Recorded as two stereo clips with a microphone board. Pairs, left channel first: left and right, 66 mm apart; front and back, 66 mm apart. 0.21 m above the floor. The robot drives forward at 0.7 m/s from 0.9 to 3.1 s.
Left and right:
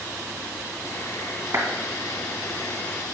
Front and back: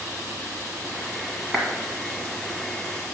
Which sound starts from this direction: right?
A clap, at 1.5 s.